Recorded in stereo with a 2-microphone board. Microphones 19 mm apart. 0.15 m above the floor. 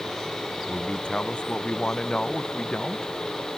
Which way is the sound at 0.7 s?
75° left (ahead or behind).